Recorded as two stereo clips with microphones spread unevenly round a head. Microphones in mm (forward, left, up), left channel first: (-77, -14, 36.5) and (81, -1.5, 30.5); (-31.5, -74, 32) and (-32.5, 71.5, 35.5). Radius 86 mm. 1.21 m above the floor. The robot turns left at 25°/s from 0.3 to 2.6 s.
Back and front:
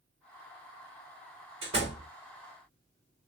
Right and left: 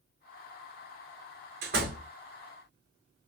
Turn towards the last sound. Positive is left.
turn(degrees=40)